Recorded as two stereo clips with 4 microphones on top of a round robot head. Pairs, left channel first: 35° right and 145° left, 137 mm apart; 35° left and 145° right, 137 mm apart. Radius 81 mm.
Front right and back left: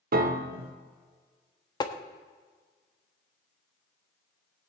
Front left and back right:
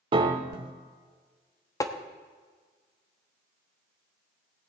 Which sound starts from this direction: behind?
A piano, at 0.1 s.